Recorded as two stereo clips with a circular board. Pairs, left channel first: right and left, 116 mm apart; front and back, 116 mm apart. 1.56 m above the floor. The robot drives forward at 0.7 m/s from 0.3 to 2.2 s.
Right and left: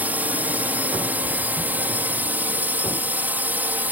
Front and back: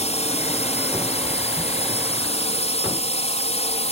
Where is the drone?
15° left.